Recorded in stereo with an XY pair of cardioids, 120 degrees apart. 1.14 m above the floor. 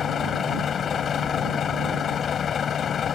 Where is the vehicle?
45° left.